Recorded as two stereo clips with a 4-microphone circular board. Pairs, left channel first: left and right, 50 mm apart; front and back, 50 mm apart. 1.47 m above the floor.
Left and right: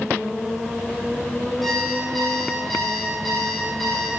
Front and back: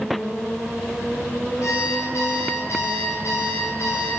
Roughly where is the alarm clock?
Ahead.